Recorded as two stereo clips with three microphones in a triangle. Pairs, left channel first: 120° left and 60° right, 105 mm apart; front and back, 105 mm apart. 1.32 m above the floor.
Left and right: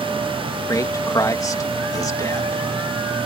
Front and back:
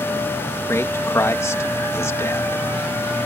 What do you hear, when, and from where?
0.7 s a man speaking: 65° left